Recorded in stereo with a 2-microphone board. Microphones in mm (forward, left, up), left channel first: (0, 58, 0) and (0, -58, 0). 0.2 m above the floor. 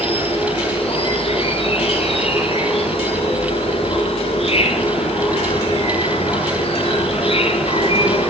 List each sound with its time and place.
0.0 s an insect: 55° left (ahead or behind), 4.5 m